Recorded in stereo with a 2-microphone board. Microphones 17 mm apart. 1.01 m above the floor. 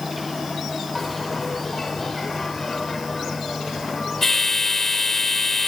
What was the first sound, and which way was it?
A bell, 30° left (ahead or behind).